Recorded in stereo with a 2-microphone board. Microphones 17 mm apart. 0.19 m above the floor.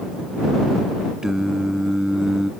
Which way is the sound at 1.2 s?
35° right (ahead or behind).